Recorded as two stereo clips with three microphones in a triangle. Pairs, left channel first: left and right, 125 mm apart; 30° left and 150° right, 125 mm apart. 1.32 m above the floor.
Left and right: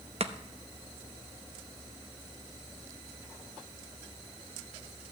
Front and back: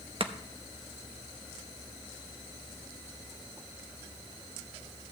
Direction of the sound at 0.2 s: 115° right.